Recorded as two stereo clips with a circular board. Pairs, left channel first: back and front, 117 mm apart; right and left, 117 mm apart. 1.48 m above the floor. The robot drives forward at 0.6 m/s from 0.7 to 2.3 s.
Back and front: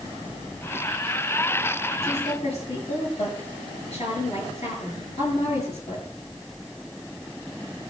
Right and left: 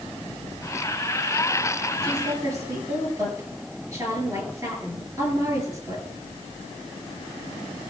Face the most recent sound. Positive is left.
turn(degrees=150)